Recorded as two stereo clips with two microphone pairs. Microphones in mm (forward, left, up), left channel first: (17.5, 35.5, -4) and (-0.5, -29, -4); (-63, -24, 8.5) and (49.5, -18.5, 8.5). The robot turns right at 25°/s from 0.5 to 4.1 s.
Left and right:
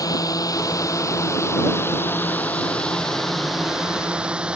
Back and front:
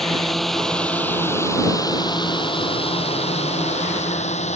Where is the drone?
95° left; by 4.6 s straight behind.